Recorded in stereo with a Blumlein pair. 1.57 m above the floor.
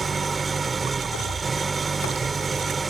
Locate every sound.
0.0 s an engine running: 15° right